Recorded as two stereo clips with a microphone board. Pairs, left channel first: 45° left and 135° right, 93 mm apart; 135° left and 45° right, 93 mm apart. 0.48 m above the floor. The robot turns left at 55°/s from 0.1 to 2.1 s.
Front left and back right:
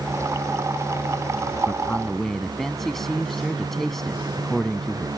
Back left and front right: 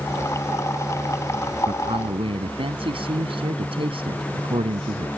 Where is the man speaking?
15° right; by 5.1 s 40° right.